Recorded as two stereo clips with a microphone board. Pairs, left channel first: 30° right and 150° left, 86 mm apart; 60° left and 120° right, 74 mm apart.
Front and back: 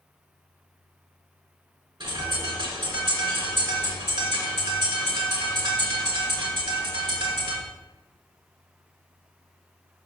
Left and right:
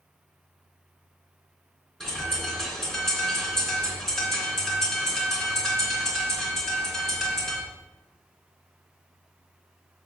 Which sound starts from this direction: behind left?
A bird, at 2.0 s.